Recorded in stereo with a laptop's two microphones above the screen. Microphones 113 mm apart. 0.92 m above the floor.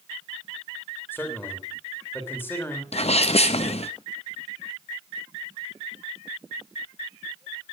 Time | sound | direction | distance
1.1 | a man speaking | 20° left (ahead or behind) | 3 m
2.9 | a sneeze | 65° left (ahead or behind) | 0.7 m